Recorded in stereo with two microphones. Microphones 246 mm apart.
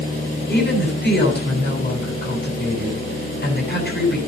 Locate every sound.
0.5 s a woman speaking: 45° left (ahead or behind), 8.5 m